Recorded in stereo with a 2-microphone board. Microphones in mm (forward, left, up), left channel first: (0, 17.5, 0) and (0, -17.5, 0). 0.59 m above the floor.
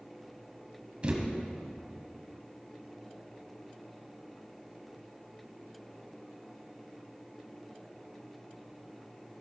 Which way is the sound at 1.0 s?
35° right (ahead or behind).